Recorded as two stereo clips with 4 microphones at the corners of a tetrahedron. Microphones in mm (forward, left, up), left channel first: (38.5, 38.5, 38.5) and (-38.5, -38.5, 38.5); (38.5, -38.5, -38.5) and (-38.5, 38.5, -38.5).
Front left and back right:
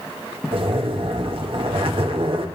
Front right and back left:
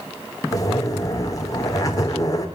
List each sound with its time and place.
0.5 s a zipper: 100° right, 2.5 m